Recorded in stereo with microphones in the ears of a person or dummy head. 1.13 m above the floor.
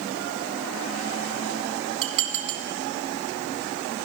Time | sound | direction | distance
2.0 | dishes clattering | 35° right (ahead or behind) | 1.3 m